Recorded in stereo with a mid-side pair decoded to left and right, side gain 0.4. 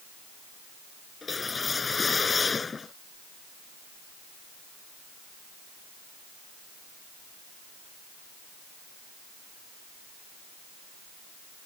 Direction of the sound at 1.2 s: 35° left.